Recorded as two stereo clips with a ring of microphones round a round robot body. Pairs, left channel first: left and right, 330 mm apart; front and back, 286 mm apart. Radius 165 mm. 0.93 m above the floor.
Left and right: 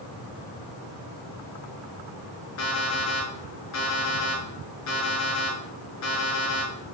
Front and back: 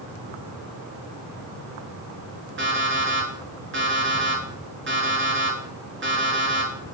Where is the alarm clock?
130° left, 5 m.